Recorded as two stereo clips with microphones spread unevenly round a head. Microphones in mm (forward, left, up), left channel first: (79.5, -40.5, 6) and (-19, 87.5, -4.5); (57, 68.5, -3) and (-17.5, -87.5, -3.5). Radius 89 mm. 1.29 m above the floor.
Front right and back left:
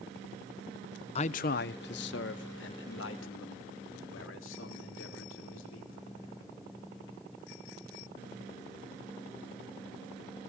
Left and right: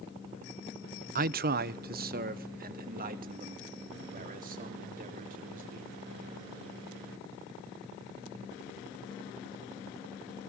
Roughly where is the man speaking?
Right.